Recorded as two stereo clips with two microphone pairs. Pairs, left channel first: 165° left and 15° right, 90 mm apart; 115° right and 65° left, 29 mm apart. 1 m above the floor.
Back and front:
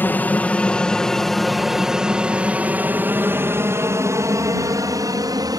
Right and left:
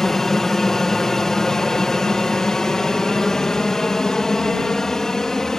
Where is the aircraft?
165° right; by 5.6 s 45° right.